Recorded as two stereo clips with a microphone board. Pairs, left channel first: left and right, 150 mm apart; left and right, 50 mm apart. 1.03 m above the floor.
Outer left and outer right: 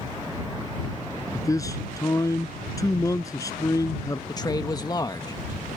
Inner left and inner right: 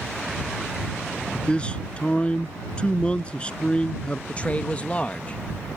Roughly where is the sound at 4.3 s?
Left.